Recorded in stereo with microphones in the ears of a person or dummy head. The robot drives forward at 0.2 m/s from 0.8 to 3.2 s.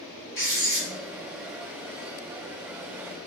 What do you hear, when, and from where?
0.3 s writing: 35° left (ahead or behind), 1.3 m